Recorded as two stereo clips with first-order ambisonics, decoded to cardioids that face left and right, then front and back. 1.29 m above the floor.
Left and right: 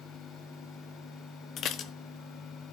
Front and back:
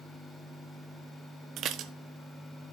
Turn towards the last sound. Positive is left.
turn(degrees=135)